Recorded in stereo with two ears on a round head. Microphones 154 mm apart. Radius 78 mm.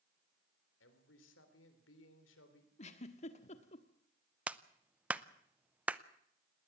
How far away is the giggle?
About 1.5 m.